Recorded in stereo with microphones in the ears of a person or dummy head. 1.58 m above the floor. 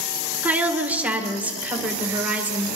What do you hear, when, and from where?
0.4 s a woman speaking: 15° right (ahead or behind), 1.9 m